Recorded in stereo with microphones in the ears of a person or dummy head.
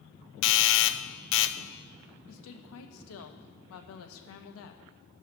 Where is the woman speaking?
85° left, 1.2 m.